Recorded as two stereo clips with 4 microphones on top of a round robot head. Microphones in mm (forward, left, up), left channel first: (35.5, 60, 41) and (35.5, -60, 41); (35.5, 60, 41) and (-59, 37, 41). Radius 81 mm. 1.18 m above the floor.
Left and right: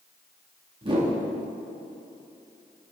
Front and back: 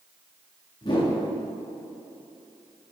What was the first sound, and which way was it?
A whoosh, 40° right.